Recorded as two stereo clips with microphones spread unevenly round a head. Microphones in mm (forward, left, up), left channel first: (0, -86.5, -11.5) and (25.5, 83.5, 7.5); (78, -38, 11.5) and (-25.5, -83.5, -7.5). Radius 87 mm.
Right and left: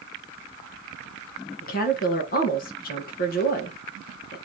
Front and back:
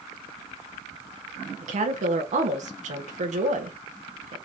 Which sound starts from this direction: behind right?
A woman speaking, at 1.6 s.